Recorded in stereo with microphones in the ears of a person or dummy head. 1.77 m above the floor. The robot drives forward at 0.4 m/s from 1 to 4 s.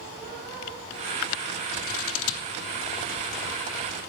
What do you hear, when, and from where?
1.7 s scissors: 70° left (ahead or behind), 0.7 m; by 2.5 s 80° left, 0.6 m